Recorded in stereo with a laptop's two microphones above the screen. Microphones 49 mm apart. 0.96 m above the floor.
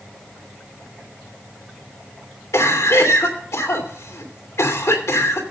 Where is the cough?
75° left (ahead or behind), 3 m.